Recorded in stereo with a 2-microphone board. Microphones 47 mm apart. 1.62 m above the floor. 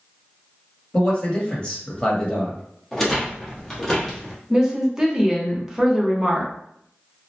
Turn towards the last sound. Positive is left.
turn(degrees=-10)  # may be behind; listen again after turning